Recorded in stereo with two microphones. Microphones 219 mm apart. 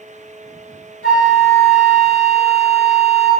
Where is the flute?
75° left (ahead or behind), 0.7 m.